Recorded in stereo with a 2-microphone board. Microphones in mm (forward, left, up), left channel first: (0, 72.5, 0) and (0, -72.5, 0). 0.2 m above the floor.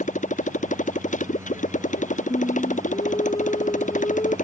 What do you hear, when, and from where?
0.0 s a motorcycle: 60° left (ahead or behind)
2.3 s singing: 35° left (ahead or behind)